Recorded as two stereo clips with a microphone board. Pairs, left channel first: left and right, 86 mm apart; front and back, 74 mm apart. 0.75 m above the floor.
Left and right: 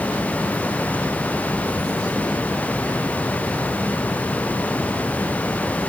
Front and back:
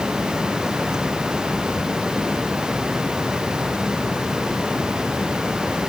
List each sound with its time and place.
Only background noise.